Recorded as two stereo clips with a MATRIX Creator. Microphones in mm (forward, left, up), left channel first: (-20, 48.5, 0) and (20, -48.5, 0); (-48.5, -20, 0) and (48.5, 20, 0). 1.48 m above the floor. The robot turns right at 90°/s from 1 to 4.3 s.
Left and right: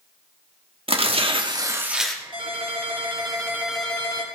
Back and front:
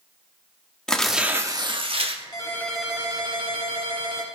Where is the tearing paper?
75° right, 1.6 m; by 2.2 s 35° left, 1.6 m.